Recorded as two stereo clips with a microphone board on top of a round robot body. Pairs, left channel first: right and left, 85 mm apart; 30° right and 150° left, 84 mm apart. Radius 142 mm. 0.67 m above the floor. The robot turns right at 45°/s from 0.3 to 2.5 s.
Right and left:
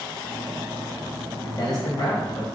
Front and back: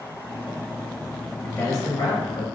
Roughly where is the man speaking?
Right.